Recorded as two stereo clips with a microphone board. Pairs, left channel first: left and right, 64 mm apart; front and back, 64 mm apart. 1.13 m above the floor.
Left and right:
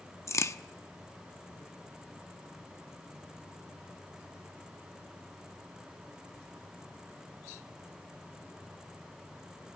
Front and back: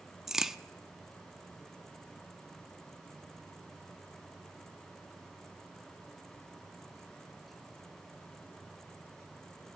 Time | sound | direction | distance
0.3 | a crack | 100° left | 0.7 m